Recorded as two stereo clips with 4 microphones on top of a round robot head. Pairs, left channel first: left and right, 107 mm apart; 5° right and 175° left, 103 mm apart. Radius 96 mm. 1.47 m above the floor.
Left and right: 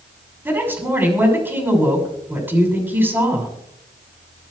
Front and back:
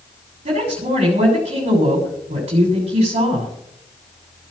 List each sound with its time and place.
0.5 s a woman speaking: 160° right, 6 m